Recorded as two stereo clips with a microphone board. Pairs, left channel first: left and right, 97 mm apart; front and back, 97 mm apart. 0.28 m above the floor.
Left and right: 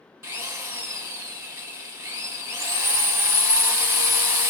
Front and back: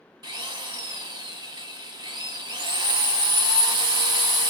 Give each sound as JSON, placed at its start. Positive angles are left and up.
{"t": 0.2, "sound": "a drill", "azimuth_deg": -150, "distance_m": 0.8}